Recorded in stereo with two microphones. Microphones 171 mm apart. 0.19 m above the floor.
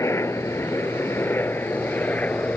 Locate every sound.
0.0 s a helicopter: 15° left (ahead or behind); by 2.6 s 10° left (ahead or behind)